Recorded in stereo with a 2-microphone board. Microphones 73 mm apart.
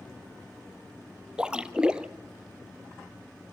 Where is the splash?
10° right (ahead or behind), 0.8 m.